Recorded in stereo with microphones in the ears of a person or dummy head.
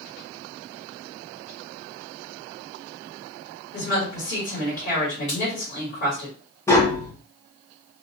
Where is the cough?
No cough in this recording.